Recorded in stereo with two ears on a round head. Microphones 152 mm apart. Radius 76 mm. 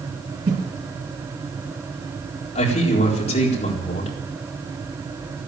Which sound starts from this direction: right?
A whoosh, at 0.5 s.